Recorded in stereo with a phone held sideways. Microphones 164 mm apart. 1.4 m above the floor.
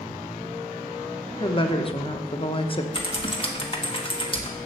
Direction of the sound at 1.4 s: 35° left (ahead or behind).